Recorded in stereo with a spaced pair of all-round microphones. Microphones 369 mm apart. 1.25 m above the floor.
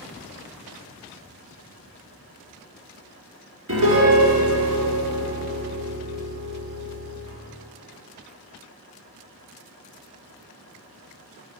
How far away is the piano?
About 2 m.